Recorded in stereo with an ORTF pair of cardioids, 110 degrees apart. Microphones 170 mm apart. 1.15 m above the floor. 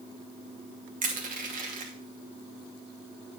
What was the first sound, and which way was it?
Crushing, 55° right.